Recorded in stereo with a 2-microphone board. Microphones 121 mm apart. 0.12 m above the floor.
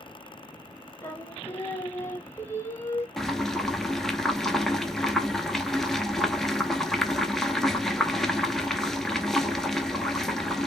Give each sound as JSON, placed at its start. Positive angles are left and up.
{"t": 1.0, "sound": "singing", "side_deg": 20, "distance_m": 0.7}
{"t": 3.2, "sound": "boiling", "side_deg": 5, "distance_m": 0.5}